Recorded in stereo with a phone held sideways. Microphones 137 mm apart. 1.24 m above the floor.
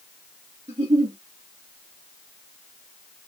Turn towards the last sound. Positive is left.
turn(degrees=-55)  # may be behind; listen again after turning